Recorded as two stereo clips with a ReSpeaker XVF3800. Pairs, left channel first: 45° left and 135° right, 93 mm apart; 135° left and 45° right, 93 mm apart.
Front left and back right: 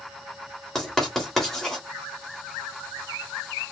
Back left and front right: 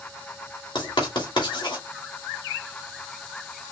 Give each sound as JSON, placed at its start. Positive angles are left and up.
{"t": 0.8, "sound": "writing", "azimuth_deg": 130, "distance_m": 2.5}